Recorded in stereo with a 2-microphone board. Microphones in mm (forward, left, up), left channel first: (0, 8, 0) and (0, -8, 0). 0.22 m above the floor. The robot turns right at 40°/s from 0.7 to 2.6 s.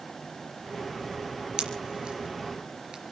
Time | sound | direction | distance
1.6 | a pop | 65° right (ahead or behind) | 3.5 m